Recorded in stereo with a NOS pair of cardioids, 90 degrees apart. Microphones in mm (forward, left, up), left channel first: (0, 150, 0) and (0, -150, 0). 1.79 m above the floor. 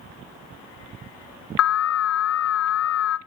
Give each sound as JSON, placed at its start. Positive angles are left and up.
{"t": 1.6, "sound": "an alarm", "azimuth_deg": 55, "distance_m": 0.7}